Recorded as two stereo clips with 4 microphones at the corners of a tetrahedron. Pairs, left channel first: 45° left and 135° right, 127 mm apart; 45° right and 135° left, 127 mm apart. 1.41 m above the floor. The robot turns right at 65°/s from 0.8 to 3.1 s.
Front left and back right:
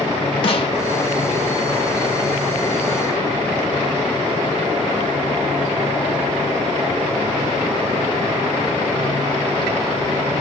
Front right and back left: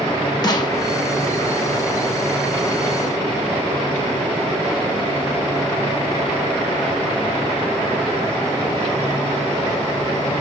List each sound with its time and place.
0.4 s a snare drum: 10° left, 0.7 m